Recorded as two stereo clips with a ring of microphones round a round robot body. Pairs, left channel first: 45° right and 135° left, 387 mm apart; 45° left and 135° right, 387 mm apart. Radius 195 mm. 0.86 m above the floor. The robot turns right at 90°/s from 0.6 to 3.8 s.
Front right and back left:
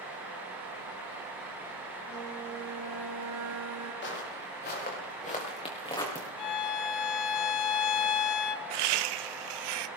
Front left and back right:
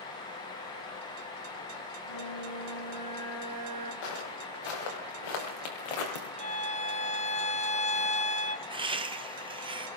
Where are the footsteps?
20° left, 6 m; by 6.3 s 40° left, 3.5 m.